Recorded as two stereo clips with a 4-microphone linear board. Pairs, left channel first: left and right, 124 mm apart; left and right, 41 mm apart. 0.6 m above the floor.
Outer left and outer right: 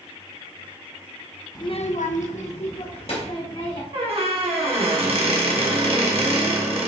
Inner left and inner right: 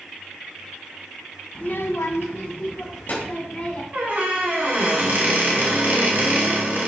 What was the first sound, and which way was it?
A child speaking, 30° left (ahead or behind).